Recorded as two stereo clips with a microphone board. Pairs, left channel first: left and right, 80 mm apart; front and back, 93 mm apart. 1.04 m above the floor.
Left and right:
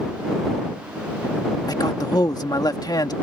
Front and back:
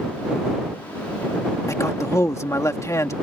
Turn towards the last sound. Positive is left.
turn(degrees=55)